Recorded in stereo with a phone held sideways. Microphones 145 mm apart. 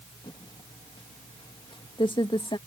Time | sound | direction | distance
0.2 | typing on a keyboard | 35° left (ahead or behind) | ?